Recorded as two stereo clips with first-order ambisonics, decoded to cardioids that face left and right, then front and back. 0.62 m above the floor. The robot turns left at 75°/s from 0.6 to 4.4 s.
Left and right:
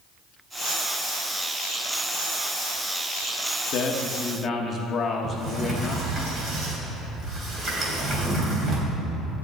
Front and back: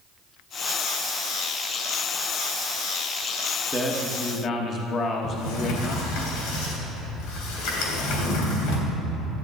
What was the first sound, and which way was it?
A man speaking, 90° left.